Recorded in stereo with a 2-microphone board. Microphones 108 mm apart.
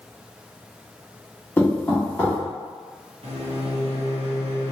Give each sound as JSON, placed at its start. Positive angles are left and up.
{"t": 1.6, "sound": "knocking", "side_deg": 20, "distance_m": 1.4}
{"t": 3.2, "sound": "a microwave", "side_deg": -65, "distance_m": 1.1}